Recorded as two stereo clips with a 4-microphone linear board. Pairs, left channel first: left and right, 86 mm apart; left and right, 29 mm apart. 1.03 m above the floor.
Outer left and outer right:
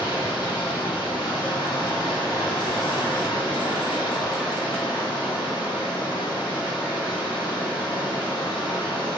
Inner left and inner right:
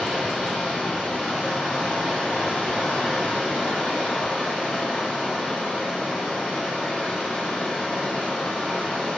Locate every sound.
0.0 s running water: 55° left (ahead or behind), 1.5 m